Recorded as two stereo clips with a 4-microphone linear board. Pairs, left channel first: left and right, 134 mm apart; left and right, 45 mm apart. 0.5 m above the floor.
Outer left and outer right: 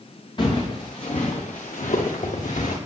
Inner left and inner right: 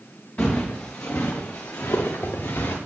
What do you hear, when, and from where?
0.4 s footsteps: 40° left (ahead or behind), 2.5 m; by 2.8 s 75° left (ahead or behind), 2.5 m